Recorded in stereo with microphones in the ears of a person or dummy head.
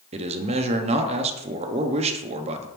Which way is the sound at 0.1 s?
30° right (ahead or behind).